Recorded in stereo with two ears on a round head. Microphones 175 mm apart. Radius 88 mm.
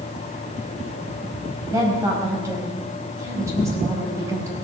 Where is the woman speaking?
15° right (ahead or behind), 4.5 m.